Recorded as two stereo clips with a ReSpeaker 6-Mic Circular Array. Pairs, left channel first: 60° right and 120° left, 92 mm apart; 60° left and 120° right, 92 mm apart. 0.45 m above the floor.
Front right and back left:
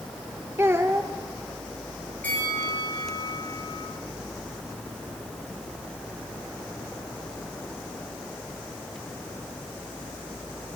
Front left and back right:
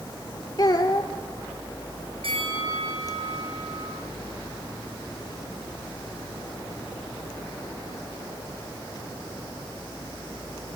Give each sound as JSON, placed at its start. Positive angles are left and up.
{"t": 0.6, "sound": "a child speaking", "azimuth_deg": 70, "distance_m": 0.8}
{"t": 2.2, "sound": "a bell", "azimuth_deg": -135, "distance_m": 7.5}